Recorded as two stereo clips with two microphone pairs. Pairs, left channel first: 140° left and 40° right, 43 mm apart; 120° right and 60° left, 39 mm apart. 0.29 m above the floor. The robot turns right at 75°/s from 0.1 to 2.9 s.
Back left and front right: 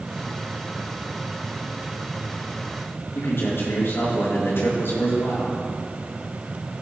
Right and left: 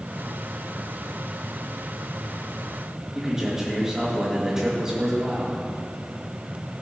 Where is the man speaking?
135° left, 5 m.